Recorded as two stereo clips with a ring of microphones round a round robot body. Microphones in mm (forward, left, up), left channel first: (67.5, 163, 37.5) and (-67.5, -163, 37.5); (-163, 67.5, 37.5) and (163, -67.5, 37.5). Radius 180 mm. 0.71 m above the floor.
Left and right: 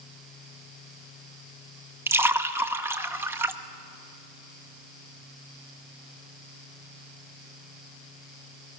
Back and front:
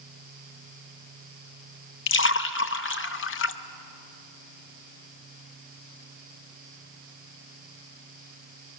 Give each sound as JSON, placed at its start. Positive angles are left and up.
{"t": 2.1, "sound": "a splash", "azimuth_deg": 170, "distance_m": 0.7}